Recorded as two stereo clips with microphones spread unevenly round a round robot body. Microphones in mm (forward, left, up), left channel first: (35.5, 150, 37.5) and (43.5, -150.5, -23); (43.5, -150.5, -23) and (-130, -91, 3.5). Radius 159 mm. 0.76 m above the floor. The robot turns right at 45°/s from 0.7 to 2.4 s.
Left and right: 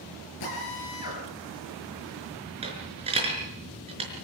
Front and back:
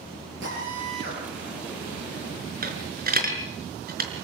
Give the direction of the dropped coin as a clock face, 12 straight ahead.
5 o'clock.